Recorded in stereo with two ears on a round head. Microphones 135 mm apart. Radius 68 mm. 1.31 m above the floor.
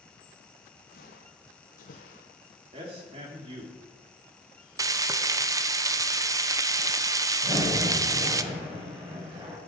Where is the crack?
30° right (ahead or behind), 7 m.